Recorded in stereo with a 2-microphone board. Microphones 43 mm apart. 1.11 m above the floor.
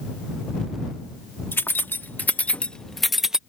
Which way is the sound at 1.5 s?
60° left (ahead or behind).